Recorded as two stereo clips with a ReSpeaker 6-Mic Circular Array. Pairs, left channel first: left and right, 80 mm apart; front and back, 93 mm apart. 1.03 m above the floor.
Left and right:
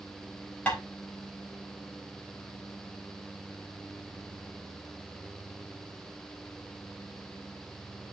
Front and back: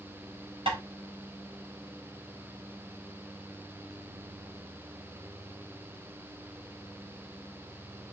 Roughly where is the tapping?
Behind.